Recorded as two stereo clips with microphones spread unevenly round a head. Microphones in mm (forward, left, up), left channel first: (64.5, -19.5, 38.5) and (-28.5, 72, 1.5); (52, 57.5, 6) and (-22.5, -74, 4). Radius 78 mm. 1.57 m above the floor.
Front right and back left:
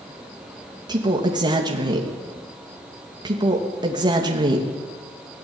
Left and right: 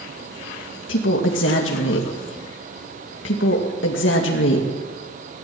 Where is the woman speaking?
75° left, 2.5 m.